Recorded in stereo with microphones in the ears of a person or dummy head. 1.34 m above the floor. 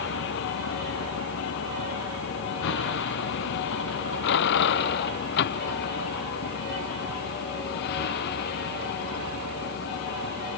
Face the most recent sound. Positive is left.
turn(degrees=55)  # may be behind; listen again after turning